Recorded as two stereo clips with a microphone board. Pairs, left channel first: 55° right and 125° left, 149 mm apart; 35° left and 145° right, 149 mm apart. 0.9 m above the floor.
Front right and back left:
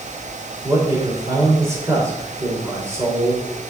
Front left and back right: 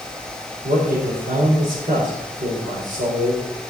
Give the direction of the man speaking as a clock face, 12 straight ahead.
5 o'clock.